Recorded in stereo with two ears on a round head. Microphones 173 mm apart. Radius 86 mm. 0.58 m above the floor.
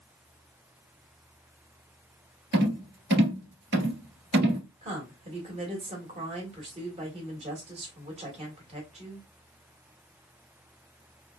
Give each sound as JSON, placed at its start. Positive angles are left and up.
{"t": 2.5, "sound": "a rattle", "side_deg": -60, "distance_m": 1.6}
{"t": 4.8, "sound": "a woman speaking", "side_deg": -35, "distance_m": 1.9}